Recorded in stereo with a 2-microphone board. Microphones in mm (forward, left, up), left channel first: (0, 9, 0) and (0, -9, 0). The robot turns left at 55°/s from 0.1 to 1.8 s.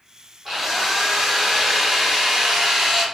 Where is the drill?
25° right, 1.3 m; by 3.0 s 95° right, 1.3 m.